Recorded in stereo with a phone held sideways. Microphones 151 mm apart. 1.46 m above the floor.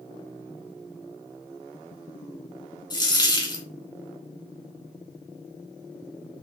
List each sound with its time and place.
2.9 s a dropped coin: 25° left (ahead or behind), 1.4 m